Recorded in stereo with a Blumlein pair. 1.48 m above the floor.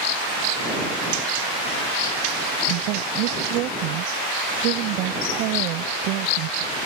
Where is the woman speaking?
40° right.